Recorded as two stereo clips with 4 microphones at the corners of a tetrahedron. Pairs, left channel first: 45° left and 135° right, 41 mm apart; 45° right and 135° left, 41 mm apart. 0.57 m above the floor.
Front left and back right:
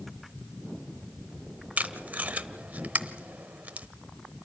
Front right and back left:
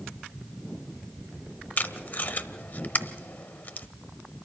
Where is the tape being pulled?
85° right, 0.8 m.